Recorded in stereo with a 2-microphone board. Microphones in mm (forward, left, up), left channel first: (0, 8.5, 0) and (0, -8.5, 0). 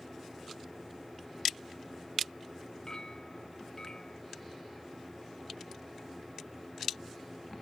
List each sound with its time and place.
2.9 s a clink: 40° left (ahead or behind)